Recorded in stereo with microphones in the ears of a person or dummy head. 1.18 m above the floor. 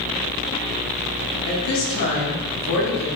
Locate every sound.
1.5 s a woman speaking: 70° left (ahead or behind), 1.5 m